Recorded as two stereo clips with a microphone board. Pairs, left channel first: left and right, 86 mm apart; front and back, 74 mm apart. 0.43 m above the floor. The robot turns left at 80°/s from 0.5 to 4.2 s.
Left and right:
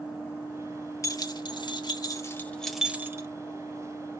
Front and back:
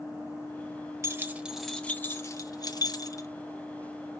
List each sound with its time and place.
1.0 s keys jangling: 135° left, 1.0 m; by 3.3 s 45° right, 1.0 m